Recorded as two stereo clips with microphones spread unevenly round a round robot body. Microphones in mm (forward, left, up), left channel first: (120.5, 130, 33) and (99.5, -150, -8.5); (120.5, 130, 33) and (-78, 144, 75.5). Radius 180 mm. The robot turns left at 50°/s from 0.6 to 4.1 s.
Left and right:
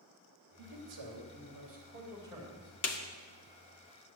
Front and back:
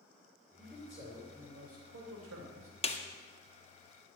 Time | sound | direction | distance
0.6 | a man speaking | 90° right | 3 m
2.8 | a snare drum | 50° left | 1.6 m